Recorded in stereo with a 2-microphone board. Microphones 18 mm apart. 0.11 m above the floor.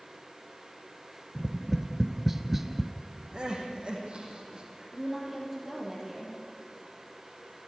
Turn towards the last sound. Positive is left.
turn(degrees=-15)  # may be behind; listen again after turning